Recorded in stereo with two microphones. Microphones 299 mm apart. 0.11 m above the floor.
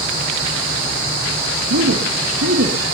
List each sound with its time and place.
1.7 s a man speaking: 60° right (ahead or behind), 3 m